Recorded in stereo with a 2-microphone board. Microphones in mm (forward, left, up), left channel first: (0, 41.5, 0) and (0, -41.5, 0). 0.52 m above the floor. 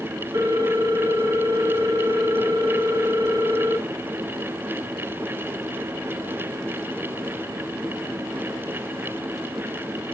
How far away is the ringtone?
About 2 m.